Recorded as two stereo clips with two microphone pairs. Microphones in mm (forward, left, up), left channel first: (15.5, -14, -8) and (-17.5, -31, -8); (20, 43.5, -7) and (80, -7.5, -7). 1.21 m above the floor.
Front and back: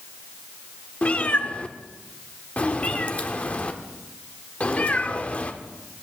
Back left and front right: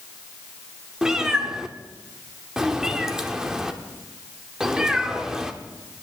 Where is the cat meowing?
30° left, 0.9 m.